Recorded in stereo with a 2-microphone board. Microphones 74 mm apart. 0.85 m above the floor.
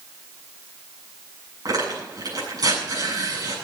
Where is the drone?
No drone in this recording.